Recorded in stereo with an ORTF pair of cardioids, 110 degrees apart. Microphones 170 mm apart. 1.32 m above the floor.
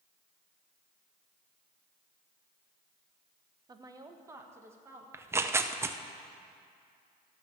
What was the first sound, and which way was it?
A woman speaking, 25° right.